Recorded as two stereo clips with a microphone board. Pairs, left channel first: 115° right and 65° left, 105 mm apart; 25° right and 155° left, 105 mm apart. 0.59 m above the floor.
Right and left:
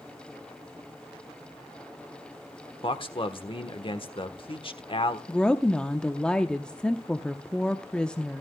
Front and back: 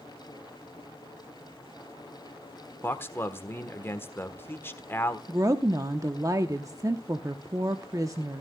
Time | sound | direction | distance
2.8 | a man speaking | 90° right | 1.3 m
5.3 | a woman speaking | 175° left | 0.9 m